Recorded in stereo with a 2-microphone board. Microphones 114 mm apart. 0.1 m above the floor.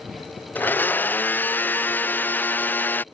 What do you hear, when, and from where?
0.6 s a blender: 15° left (ahead or behind)